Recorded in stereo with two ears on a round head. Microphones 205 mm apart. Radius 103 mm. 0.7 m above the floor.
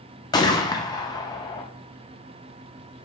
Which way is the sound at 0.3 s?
20° left (ahead or behind).